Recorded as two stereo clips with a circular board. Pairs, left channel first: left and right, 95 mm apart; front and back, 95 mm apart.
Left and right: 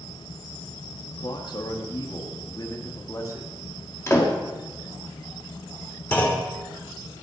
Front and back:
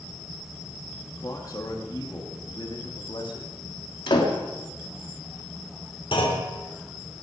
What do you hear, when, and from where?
1.2 s a man speaking: 55° left, 2.5 m; by 3.6 s 30° left, 3 m
4.1 s a door slam: 30° left, 2.5 m
6.1 s a clunk: 20° left, 3 m